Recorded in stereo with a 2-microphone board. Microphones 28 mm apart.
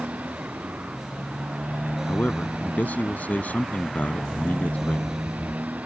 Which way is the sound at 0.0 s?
75° right (ahead or behind).